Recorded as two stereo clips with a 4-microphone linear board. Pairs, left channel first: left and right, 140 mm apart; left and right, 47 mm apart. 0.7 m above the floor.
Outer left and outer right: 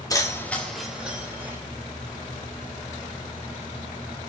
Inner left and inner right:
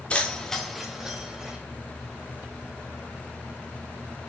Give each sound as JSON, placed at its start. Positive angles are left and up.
{"t": 0.1, "sound": "keys jangling", "side_deg": 25, "distance_m": 0.5}